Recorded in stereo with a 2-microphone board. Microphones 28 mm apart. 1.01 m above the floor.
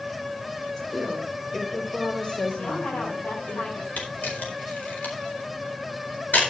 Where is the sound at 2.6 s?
50° left (ahead or behind), 8.5 m.